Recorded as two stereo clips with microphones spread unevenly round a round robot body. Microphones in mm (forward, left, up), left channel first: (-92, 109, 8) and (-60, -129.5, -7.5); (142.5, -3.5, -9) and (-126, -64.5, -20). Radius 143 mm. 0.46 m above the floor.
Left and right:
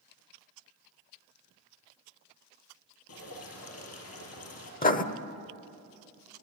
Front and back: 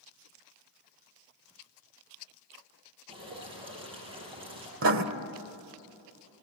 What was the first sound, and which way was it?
Dripping, 120° left.